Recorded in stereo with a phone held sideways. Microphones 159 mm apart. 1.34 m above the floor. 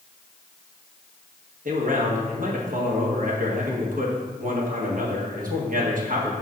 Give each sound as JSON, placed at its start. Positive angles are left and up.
{"t": 1.6, "sound": "a man speaking", "side_deg": -60, "distance_m": 1.4}